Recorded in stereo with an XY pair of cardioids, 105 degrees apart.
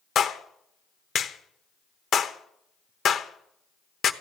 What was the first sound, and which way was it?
A clap, 55° left.